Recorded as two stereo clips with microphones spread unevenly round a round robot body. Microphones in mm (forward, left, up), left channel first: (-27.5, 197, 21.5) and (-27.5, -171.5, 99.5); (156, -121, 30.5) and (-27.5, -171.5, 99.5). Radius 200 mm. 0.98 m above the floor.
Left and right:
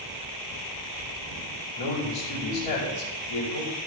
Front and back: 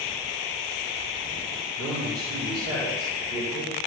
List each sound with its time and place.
1.8 s a man speaking: 100° left, 4.5 m